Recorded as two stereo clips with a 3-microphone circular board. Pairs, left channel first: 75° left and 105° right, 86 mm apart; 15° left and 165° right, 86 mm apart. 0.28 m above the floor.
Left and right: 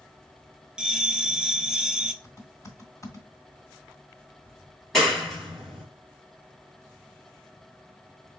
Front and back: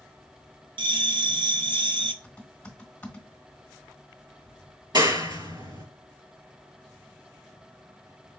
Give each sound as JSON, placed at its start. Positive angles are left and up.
{"t": 0.8, "sound": "a bell", "azimuth_deg": 175, "distance_m": 0.8}
{"t": 2.2, "sound": "typing on a keyboard", "azimuth_deg": 75, "distance_m": 1.5}
{"t": 4.9, "sound": "a clap", "azimuth_deg": 160, "distance_m": 3.0}